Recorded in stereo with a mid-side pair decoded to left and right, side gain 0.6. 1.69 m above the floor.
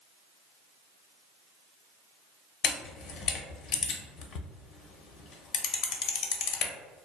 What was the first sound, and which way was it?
A camera shutter, 60° left.